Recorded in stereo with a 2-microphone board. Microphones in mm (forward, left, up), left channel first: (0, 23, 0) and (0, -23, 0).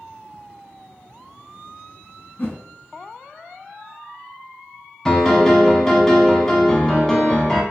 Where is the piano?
10° left (ahead or behind), 0.6 m.